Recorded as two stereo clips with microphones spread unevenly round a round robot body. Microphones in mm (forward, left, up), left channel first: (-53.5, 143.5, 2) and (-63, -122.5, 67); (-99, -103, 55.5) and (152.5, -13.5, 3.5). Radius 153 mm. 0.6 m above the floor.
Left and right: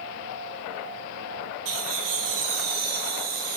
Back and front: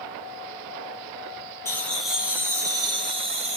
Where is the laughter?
75° right, 1.5 m; by 3.6 s 45° right, 2.5 m.